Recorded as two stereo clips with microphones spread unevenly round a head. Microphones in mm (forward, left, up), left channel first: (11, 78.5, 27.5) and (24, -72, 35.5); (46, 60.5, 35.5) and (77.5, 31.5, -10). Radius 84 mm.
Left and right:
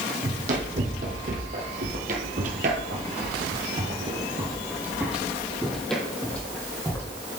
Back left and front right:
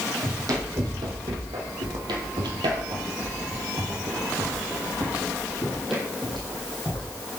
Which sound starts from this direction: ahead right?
Running footsteps, at 0.2 s.